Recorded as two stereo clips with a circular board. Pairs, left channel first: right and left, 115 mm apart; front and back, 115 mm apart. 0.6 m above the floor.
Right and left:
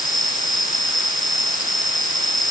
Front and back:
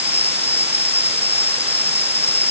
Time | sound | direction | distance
0.0 | an insect | 145° right | ?